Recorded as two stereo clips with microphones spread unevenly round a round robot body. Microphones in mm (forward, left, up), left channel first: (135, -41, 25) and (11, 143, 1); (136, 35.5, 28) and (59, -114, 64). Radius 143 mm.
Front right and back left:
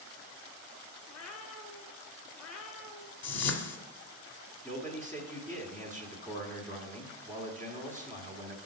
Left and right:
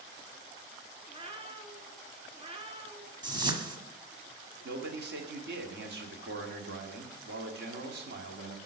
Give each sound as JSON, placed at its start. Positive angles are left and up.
{"t": 1.1, "sound": "a cat meowing", "azimuth_deg": -60, "distance_m": 1.6}
{"t": 3.2, "sound": "a whoosh", "azimuth_deg": -50, "distance_m": 1.6}
{"t": 4.6, "sound": "a man speaking", "azimuth_deg": -140, "distance_m": 1.6}